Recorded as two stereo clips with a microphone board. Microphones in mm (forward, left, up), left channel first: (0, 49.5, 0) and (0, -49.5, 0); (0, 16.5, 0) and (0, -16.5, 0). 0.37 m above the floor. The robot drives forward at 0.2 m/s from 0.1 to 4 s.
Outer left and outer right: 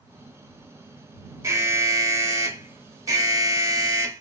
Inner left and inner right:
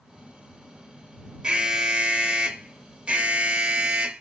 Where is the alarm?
25° right (ahead or behind), 0.8 m; by 4.2 s 30° right (ahead or behind), 0.7 m.